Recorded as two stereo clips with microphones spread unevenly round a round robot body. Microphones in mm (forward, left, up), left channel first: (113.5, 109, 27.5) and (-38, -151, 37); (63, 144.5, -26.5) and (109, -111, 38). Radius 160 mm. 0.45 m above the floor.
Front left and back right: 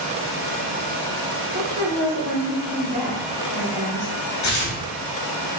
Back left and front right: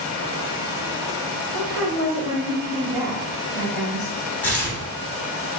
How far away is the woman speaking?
About 1.1 m.